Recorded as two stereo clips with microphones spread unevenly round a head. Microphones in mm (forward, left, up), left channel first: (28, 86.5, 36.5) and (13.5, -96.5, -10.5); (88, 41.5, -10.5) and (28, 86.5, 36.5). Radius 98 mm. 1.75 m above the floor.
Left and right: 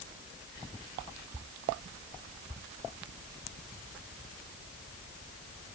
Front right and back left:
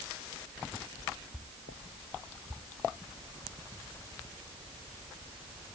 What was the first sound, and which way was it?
Only background noise.